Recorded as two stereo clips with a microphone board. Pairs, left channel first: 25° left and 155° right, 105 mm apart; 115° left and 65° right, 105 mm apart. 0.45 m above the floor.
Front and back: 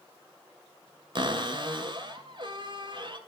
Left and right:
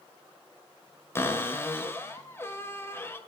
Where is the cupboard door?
175° left, 2 m.